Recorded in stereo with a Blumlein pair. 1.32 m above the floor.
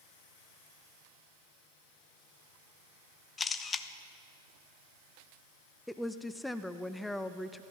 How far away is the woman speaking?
About 0.7 m.